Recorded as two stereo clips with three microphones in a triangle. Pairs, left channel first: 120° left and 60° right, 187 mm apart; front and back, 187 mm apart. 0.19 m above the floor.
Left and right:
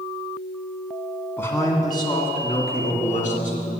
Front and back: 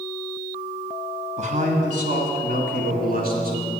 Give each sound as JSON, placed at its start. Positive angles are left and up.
{"t": 1.4, "sound": "a man speaking", "azimuth_deg": -170, "distance_m": 1.7}